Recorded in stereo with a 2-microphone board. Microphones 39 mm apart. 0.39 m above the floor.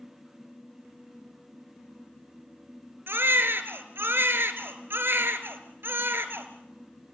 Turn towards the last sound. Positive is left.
turn(degrees=-70)  # may be behind; listen again after turning